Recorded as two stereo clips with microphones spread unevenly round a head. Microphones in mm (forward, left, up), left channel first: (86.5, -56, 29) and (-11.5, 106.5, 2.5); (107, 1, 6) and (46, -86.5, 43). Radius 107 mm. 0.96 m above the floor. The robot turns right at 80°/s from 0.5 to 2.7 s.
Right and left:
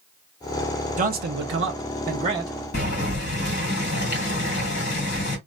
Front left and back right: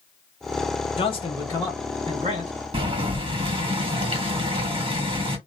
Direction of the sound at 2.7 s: 95° right.